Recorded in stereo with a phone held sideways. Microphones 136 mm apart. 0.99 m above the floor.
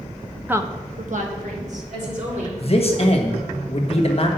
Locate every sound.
0.5 s a woman speaking: 10° right (ahead or behind), 0.6 m; by 2.5 s 60° right (ahead or behind), 3 m
2.6 s a man speaking: 45° left (ahead or behind), 1.3 m